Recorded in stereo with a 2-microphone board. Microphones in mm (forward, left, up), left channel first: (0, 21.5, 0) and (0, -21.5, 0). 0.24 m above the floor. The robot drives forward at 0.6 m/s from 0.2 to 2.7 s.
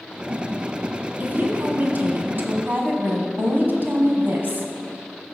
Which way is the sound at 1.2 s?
40° right (ahead or behind).